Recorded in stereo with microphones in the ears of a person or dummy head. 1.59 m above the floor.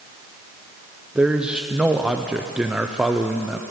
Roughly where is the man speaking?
Centre.